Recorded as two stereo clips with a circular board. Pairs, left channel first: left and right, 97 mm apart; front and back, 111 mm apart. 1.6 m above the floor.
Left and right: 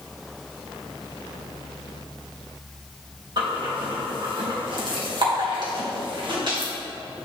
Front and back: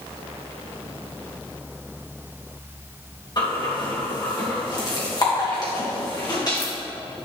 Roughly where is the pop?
No pop in this recording.